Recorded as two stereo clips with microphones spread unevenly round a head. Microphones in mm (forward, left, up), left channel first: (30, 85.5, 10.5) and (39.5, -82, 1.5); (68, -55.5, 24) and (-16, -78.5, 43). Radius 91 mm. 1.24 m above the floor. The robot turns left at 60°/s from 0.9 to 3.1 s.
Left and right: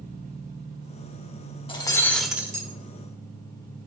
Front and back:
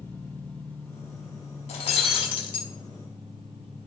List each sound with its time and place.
0.0 s an engine running: 60° right, 3 m; by 3.9 s 170° left, 3 m
1.7 s breaking glass: 40° left, 1.2 m; by 2.7 s 20° right, 1.2 m